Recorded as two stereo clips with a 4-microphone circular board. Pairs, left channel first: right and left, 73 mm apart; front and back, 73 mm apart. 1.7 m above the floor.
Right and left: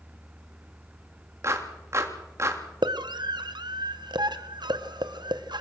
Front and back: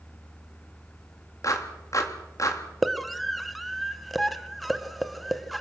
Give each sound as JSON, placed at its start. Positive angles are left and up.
{"t": 1.4, "sound": "a clap", "azimuth_deg": 40, "distance_m": 3.0}
{"t": 2.8, "sound": "a scream", "azimuth_deg": 90, "distance_m": 1.6}